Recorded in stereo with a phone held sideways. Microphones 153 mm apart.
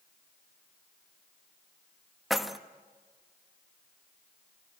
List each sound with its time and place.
2.3 s keys jangling: centre (ahead or behind), 1.0 m